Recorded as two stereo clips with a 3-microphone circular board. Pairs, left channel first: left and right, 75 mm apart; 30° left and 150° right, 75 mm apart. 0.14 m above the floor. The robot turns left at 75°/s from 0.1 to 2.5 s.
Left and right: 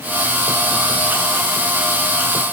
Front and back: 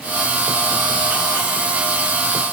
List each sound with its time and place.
Only background noise.